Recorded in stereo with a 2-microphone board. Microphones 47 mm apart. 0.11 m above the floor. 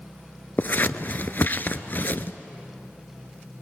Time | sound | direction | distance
0.6 | scissors | 40° left (ahead or behind) | 0.7 m